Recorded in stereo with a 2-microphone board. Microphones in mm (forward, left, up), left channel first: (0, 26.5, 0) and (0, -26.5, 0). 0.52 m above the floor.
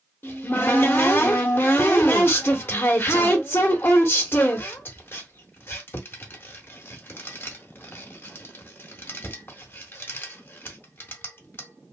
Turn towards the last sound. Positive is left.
turn(degrees=45)  # may be behind; listen again after turning